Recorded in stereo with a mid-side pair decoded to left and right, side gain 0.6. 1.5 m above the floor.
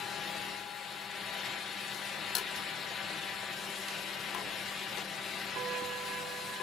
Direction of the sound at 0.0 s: 45° left.